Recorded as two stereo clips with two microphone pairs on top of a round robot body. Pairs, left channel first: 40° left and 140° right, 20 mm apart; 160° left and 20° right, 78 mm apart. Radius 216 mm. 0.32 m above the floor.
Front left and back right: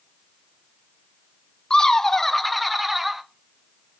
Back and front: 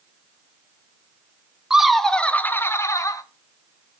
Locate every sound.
1.7 s laughter: 70° left, 1.0 m; by 3.2 s 140° left, 1.3 m